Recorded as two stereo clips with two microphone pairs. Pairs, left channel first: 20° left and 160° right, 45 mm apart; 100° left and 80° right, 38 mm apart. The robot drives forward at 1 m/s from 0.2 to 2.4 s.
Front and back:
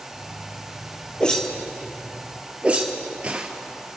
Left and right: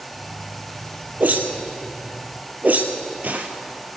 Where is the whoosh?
50° right, 1.6 m; by 3.5 s 105° right, 1.4 m.